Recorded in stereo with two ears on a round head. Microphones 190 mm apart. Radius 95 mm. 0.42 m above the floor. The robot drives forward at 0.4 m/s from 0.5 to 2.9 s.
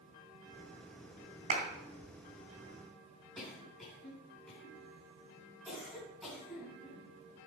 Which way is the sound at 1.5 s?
35° right (ahead or behind).